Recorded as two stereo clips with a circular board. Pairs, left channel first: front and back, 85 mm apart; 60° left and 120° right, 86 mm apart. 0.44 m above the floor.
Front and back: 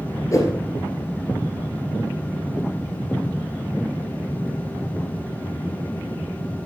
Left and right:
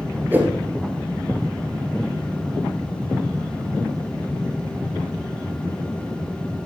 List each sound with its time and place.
0.3 s a whoosh: 50° right, 2 m